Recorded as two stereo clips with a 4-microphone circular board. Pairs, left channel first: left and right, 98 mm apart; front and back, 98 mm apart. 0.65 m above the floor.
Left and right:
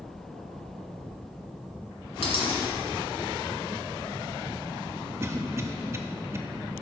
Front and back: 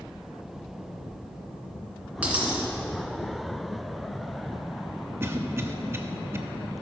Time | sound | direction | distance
2.2 | a dropped coin | 105° left | 2 m
5.2 | a cough | 130° right | 0.9 m